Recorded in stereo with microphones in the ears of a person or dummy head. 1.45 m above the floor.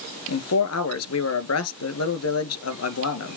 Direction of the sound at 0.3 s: 80° left.